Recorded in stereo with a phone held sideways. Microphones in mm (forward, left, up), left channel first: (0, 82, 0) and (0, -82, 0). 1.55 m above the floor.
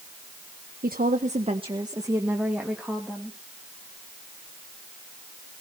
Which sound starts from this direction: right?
A woman speaking, at 0.8 s.